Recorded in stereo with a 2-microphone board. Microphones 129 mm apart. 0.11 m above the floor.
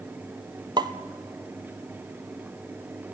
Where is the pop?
30° right (ahead or behind), 1.0 m.